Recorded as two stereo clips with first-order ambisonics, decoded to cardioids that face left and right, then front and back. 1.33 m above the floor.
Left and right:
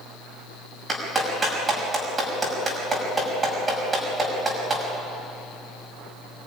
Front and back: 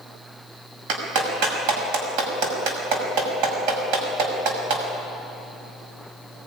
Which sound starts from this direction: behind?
A clap, at 0.9 s.